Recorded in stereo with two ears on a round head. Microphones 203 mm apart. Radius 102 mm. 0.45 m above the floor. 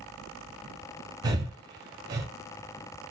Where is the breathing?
15° right (ahead or behind), 0.9 m.